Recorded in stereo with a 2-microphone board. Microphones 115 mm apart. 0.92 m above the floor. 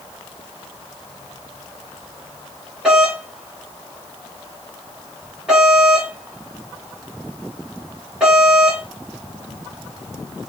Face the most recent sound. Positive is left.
turn(degrees=-5)  # may be behind; listen again after turning